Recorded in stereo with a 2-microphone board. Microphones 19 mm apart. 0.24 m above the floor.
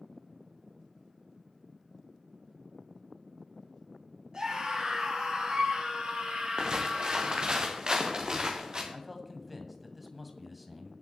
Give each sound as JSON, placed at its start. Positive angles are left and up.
{"t": 4.3, "sound": "a scream", "side_deg": -40, "distance_m": 6.0}
{"t": 6.6, "sound": "footsteps", "side_deg": -35, "distance_m": 2.5}
{"t": 8.9, "sound": "a man speaking", "side_deg": 0, "distance_m": 1.7}